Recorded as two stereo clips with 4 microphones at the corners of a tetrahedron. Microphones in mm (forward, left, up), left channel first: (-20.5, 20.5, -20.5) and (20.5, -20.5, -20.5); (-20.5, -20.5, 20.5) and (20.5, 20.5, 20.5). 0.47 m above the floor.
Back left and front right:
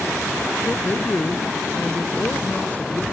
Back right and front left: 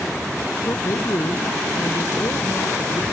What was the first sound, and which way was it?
A man speaking, 165° right.